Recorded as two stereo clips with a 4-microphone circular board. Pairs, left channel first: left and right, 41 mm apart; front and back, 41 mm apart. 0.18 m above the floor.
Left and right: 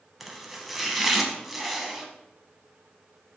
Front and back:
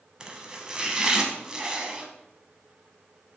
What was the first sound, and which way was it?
Chopping, 165° right.